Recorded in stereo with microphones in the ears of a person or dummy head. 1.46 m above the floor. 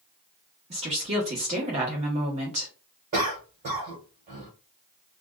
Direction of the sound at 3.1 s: 45° right (ahead or behind).